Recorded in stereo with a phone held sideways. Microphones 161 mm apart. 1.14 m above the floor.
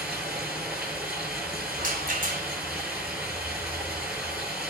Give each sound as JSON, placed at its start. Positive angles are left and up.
{"t": 0.0, "sound": "running water", "side_deg": -5, "distance_m": 9.0}
{"t": 1.8, "sound": "a rattle", "side_deg": -60, "distance_m": 3.5}